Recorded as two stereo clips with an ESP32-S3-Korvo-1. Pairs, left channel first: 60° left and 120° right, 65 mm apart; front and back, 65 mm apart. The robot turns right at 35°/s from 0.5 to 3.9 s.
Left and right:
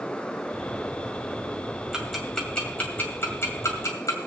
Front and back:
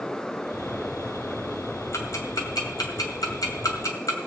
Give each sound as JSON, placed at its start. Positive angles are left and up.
{"t": 1.9, "sound": "ticking", "azimuth_deg": -35, "distance_m": 2.0}